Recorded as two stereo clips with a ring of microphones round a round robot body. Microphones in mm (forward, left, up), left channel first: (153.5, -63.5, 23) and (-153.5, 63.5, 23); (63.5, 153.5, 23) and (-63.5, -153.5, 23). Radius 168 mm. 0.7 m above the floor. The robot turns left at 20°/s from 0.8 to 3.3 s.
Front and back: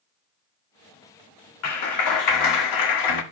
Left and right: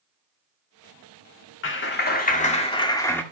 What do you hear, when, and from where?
1.6 s a clap: 15° left, 1.6 m; by 3.2 s 15° right, 1.6 m